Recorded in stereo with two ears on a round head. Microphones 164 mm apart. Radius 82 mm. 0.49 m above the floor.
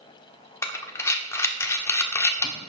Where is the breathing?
15° left (ahead or behind), 1.2 m.